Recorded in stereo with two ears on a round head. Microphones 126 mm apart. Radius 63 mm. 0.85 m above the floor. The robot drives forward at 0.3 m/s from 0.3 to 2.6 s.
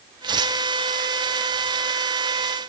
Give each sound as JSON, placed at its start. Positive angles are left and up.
{"t": 0.2, "sound": "tearing paper", "side_deg": -30, "distance_m": 0.8}